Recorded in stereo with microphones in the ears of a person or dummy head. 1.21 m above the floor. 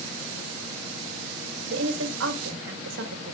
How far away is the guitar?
No guitar in this recording.